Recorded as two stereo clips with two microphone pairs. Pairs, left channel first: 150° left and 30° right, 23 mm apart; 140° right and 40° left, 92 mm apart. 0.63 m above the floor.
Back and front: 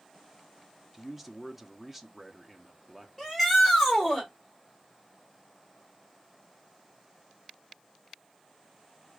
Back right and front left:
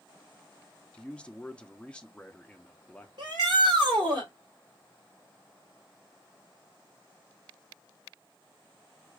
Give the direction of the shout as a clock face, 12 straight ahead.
10 o'clock.